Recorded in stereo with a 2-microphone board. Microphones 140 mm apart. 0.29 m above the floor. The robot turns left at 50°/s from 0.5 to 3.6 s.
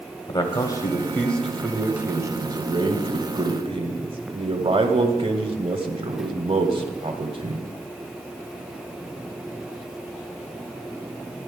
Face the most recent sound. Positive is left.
turn(degrees=-100)